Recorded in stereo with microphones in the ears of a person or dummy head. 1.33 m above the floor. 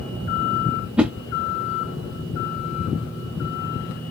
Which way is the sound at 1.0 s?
10° right (ahead or behind).